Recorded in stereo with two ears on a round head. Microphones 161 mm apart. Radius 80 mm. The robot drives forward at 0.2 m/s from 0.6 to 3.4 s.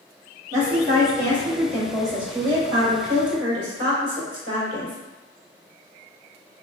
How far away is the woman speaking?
About 1.8 m.